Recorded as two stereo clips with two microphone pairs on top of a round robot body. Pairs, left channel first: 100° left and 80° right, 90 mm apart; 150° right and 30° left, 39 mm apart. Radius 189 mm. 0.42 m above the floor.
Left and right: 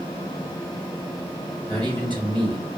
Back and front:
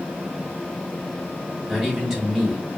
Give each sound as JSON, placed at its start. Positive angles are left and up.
{"t": 1.7, "sound": "a man speaking", "azimuth_deg": -60, "distance_m": 3.0}